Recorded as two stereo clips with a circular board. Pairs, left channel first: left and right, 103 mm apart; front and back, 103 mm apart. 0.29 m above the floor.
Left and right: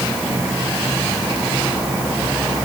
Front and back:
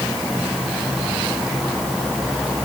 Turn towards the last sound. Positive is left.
No sound to turn to.